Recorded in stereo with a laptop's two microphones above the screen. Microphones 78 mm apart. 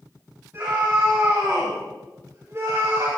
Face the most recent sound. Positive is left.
turn(degrees=-50)  # may be behind; listen again after turning